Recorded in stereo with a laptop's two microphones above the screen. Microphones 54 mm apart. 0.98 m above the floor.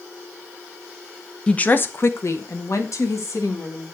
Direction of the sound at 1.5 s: 15° left (ahead or behind).